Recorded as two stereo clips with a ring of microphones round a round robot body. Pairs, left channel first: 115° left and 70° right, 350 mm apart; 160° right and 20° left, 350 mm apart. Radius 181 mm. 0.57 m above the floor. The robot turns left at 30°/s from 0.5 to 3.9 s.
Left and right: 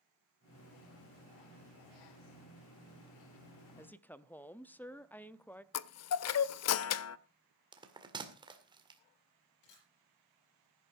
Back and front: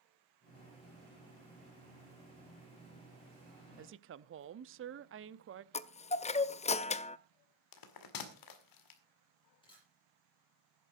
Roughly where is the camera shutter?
Behind left.